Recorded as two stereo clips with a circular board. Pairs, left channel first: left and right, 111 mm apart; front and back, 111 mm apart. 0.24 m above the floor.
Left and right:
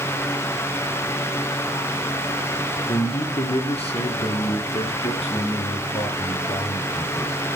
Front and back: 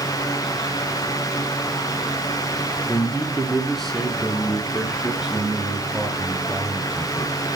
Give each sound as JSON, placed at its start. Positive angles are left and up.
{"t": 2.9, "sound": "a man speaking", "azimuth_deg": 75, "distance_m": 3.0}